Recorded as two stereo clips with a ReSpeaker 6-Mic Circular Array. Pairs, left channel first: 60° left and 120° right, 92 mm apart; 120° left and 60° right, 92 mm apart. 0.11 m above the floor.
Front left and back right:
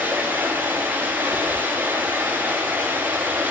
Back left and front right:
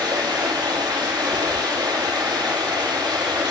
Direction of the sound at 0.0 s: 50° right.